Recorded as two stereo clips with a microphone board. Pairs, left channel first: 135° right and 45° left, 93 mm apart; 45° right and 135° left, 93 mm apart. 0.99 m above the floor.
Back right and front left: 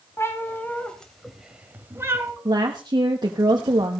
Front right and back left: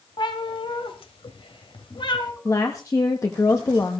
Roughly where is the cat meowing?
Right.